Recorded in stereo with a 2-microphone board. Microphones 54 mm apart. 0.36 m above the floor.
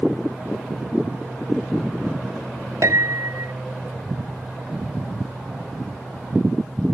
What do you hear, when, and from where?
2.8 s a piano: 75° right (ahead or behind)